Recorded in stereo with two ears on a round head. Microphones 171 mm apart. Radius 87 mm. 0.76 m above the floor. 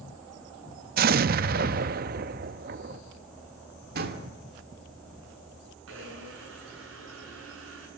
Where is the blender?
85° right, 7.5 m.